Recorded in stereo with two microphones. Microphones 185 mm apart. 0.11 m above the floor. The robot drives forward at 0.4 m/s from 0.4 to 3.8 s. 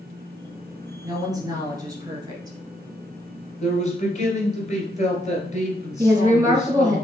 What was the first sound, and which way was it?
A woman speaking, 20° right (ahead or behind).